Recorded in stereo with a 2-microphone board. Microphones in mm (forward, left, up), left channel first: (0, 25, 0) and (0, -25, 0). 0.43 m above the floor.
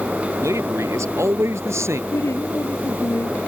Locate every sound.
0.4 s a man speaking: 80° right; by 2.0 s 70° right (ahead or behind)
2.1 s a woman speaking: 75° left (ahead or behind)